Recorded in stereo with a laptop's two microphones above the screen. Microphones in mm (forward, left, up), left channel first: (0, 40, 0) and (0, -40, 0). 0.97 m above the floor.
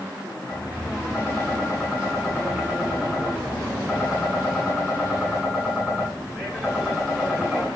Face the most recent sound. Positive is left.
turn(degrees=-10)  # may be behind; listen again after turning